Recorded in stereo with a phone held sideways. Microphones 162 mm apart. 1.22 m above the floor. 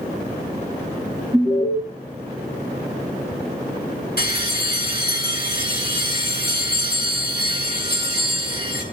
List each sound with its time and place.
1.3 s an alarm: 10° right (ahead or behind), 6.5 m
4.2 s a bell: 75° left (ahead or behind), 5 m